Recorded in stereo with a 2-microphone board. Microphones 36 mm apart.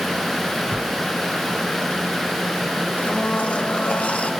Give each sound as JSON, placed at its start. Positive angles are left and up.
{"t": 0.6, "sound": "a whoosh", "side_deg": -10, "distance_m": 1.6}
{"t": 3.0, "sound": "a blender", "side_deg": 35, "distance_m": 1.4}